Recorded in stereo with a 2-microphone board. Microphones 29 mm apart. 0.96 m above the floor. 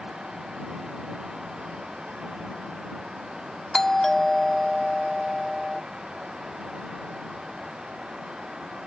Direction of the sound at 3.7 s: 20° left (ahead or behind).